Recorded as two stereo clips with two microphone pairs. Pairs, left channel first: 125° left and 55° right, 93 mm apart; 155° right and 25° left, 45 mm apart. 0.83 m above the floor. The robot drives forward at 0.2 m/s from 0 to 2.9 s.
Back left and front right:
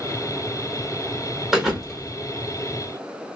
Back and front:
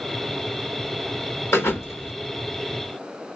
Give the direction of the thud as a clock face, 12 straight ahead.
5 o'clock.